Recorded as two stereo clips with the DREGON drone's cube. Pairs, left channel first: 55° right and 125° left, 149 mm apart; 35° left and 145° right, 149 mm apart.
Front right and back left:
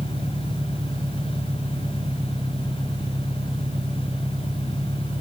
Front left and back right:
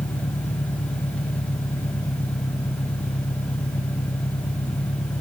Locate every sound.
0.0 s an engine running: 65° left